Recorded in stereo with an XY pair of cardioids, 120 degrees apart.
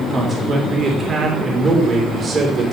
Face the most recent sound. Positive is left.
turn(degrees=-30)